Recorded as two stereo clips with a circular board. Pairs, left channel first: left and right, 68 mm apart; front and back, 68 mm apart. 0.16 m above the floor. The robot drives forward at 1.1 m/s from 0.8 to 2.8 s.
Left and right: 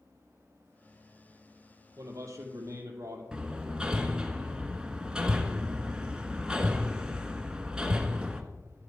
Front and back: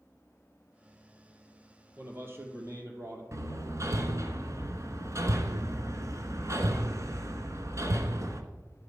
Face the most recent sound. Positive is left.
turn(degrees=-165)